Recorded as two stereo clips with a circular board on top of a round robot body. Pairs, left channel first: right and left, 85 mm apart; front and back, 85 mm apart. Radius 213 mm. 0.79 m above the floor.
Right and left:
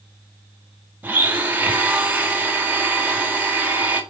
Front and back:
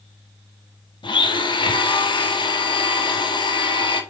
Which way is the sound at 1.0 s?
20° left.